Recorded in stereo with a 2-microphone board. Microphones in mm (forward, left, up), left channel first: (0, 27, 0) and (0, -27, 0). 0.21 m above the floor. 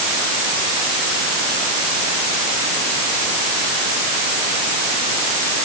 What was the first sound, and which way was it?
Only background noise.